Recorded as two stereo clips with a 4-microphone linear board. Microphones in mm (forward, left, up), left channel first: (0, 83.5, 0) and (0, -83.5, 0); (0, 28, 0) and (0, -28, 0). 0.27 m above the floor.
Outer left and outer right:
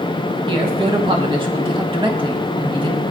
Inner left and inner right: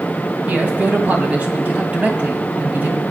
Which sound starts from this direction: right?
A man speaking, at 0.5 s.